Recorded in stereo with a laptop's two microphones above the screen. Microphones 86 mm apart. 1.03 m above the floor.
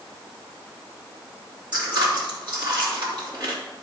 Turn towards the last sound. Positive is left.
turn(degrees=-60)  # may be behind; listen again after turning